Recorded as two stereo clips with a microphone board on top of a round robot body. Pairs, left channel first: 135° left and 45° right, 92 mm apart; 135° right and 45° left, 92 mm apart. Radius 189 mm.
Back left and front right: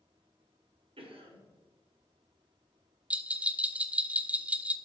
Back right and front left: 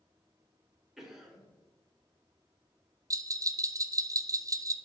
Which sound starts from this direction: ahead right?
A cough, at 1.0 s.